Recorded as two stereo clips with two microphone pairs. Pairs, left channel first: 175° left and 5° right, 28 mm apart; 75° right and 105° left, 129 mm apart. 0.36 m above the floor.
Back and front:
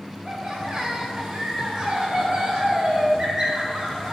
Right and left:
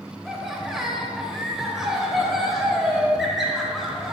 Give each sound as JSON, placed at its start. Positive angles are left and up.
{"t": 0.2, "sound": "laughter", "azimuth_deg": 20, "distance_m": 1.2}